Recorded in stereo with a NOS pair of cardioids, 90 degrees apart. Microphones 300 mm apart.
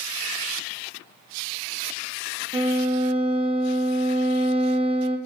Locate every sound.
2.5 s a violin: 20° right, 1.3 m